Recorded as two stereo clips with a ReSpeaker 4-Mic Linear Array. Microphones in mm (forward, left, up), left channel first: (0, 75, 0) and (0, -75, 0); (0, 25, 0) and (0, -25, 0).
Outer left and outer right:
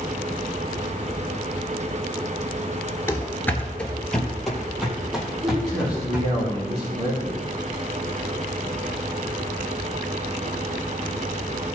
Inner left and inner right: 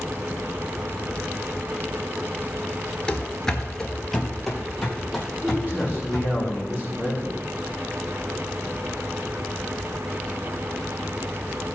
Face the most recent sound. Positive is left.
turn(degrees=-40)  # may be behind; listen again after turning